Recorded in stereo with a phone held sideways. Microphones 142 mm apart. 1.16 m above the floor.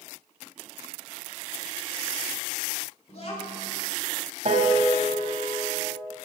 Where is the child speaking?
50° left (ahead or behind), 2.5 m.